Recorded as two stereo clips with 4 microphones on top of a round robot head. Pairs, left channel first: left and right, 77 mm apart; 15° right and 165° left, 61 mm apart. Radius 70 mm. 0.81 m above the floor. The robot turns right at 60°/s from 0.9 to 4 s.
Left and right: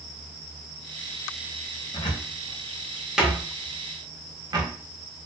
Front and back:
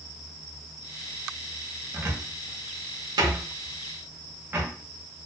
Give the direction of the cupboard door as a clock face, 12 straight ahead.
8 o'clock.